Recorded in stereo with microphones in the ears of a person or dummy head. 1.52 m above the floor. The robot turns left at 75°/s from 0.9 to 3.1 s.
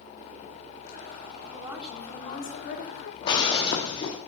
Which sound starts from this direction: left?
Breaking glass, at 3.2 s.